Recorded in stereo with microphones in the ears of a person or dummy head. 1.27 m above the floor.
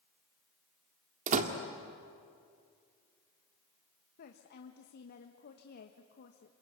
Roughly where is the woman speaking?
Left.